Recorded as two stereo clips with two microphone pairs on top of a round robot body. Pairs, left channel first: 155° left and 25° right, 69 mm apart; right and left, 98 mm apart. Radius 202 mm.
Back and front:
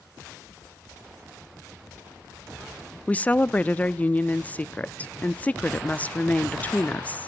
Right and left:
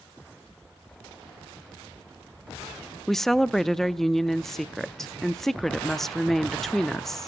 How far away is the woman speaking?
About 0.6 m.